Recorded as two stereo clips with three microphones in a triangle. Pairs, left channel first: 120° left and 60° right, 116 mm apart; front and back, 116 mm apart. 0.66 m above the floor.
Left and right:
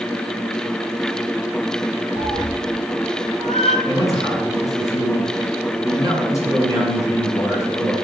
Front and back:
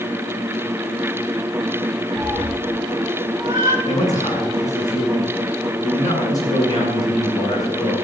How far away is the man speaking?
About 8 m.